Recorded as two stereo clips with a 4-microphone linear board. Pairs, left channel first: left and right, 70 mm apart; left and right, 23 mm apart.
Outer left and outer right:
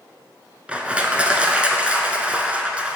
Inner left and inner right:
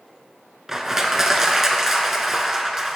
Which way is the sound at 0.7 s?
20° right (ahead or behind).